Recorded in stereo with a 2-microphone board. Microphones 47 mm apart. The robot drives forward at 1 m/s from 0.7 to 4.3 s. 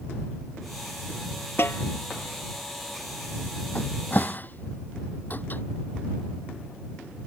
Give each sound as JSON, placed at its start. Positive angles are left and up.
{"t": 1.6, "sound": "a snare drum", "side_deg": 55}
{"t": 3.8, "sound": "a cupboard door", "side_deg": 40}